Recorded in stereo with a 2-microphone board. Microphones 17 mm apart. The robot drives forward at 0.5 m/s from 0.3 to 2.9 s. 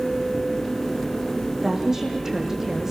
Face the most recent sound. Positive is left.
turn(degrees=-25)  # may be behind; listen again after turning